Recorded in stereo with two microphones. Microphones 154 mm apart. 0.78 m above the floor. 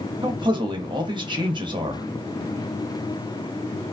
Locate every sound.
0.2 s a man speaking: 30° right (ahead or behind), 0.6 m